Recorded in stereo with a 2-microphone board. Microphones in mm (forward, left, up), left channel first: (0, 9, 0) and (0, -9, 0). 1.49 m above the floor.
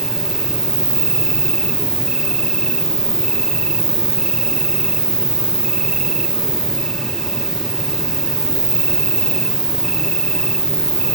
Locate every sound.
0.0 s an insect: 50° left (ahead or behind), 1.1 m